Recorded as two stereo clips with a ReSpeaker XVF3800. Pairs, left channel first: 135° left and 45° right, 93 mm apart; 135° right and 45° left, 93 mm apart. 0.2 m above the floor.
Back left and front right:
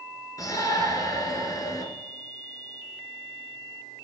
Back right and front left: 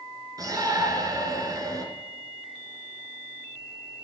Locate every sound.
0.4 s a shout: 90° left, 3 m